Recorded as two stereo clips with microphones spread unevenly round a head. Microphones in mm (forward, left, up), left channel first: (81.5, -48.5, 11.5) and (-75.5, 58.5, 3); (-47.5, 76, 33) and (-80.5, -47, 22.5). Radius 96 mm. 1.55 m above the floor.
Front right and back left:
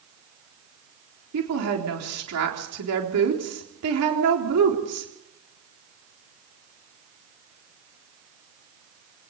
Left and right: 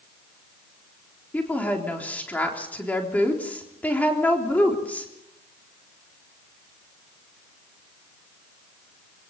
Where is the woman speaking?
150° left, 3.5 m.